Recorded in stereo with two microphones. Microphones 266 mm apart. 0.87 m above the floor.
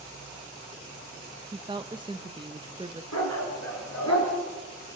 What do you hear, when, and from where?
1.5 s a woman speaking: 15° right (ahead or behind), 0.7 m
3.1 s a dog barking: 80° left, 4.5 m